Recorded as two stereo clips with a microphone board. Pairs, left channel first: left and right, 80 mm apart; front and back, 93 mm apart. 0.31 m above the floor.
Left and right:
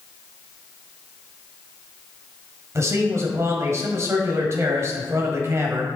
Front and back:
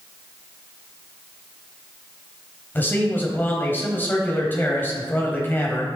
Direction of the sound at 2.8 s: 60° right.